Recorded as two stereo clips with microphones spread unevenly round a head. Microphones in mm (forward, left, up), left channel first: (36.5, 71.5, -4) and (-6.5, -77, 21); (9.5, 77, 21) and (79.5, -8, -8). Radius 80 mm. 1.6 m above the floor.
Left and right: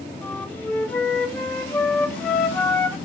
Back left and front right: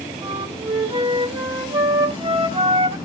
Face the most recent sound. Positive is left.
turn(degrees=-5)